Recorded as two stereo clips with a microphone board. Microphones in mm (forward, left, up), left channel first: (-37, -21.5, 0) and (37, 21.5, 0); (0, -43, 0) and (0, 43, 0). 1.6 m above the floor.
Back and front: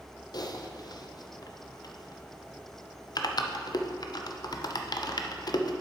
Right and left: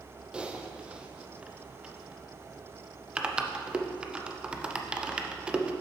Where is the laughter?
No laughter in this recording.